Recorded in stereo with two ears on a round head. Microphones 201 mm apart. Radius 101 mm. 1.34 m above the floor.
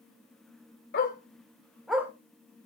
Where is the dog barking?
45° left (ahead or behind), 2 m; by 2.1 s 15° right (ahead or behind), 1.6 m.